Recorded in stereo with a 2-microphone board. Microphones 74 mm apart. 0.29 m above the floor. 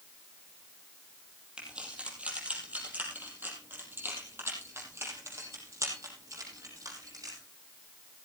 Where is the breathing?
No breathing in this recording.